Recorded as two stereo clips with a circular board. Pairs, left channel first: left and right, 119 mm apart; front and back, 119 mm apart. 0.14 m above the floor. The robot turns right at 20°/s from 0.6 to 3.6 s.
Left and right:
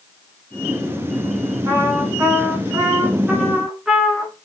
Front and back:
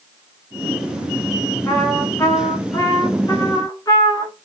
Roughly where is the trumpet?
Ahead right.